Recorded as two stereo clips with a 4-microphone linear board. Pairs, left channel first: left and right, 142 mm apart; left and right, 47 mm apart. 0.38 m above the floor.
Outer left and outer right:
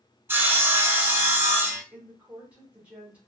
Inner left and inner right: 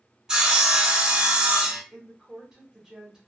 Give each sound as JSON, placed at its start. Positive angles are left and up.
{"t": 0.3, "sound": "sawing", "side_deg": -15, "distance_m": 0.5}
{"t": 1.9, "sound": "a woman speaking", "side_deg": -10, "distance_m": 1.2}